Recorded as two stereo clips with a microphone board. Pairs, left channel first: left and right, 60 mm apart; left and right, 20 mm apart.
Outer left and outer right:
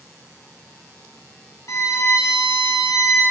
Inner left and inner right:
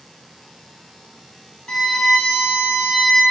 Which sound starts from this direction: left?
A violin, at 1.7 s.